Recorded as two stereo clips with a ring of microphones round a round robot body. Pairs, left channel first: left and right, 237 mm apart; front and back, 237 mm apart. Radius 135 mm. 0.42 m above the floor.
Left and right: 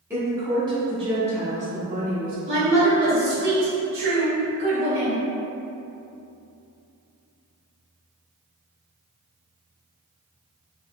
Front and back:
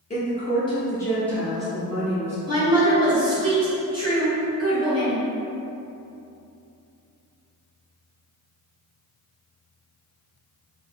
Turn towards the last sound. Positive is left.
turn(degrees=-110)